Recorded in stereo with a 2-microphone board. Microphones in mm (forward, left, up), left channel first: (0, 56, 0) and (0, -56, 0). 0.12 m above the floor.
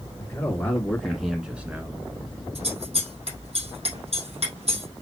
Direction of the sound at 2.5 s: 65° right (ahead or behind).